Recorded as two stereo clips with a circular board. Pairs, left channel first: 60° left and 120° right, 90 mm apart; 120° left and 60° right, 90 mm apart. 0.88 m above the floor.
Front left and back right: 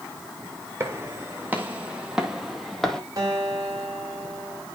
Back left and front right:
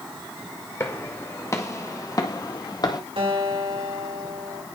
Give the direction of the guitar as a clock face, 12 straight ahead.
2 o'clock.